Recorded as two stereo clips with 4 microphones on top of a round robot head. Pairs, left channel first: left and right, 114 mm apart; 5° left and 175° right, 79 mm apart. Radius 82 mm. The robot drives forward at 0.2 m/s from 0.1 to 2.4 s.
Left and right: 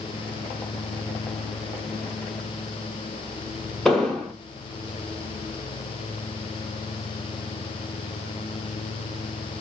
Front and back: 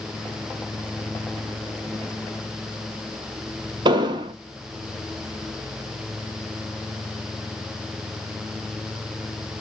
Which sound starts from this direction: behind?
An explosion, at 3.9 s.